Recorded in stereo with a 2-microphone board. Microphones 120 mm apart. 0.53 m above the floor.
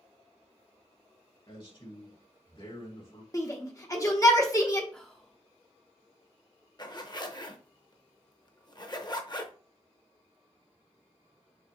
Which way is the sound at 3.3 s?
30° left (ahead or behind).